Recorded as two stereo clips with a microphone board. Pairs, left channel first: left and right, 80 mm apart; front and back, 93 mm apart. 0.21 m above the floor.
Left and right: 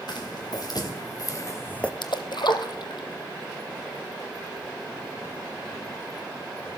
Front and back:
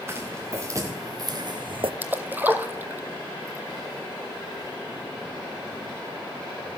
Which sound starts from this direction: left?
A splash, at 2.0 s.